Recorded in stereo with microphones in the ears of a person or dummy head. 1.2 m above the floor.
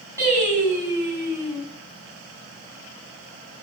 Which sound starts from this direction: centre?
Singing, at 0.2 s.